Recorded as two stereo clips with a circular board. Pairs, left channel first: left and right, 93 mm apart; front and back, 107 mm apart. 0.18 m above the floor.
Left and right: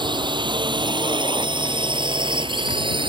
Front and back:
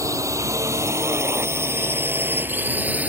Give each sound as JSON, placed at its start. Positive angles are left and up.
{"t": 0.0, "sound": "a drone", "azimuth_deg": -120}